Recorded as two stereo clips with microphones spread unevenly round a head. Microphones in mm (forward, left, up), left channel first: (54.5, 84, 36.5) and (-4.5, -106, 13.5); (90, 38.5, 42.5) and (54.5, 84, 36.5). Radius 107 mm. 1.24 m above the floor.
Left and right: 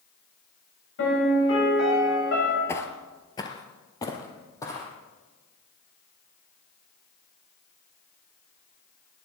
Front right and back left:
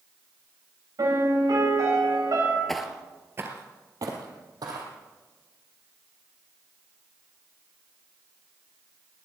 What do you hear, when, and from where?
1.0 s a piano: 110° left, 8 m
2.7 s footsteps: 20° left, 1.4 m; by 4.9 s 145° left, 3 m